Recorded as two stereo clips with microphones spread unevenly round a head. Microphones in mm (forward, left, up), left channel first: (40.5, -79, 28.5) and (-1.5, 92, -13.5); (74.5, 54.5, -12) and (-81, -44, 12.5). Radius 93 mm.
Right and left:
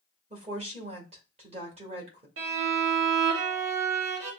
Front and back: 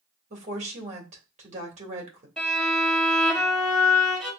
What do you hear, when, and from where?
0.3 s a woman speaking: 160° left, 2 m
2.4 s a violin: 120° left, 2.0 m